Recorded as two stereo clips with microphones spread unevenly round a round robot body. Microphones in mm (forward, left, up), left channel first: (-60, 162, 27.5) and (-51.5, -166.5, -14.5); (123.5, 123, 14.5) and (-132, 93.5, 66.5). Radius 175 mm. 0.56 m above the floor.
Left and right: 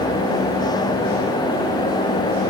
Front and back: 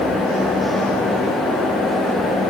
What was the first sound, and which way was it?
Only background noise.